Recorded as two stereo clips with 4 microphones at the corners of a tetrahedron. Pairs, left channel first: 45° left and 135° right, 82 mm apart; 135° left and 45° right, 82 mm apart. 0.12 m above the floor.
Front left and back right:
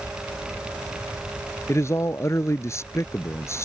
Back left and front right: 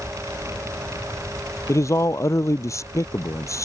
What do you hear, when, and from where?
1.7 s a man speaking: 95° left